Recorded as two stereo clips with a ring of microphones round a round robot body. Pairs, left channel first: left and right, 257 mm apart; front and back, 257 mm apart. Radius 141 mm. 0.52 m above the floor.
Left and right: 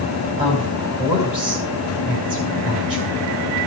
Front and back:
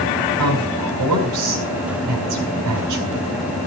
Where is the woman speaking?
165° right, 3.5 m.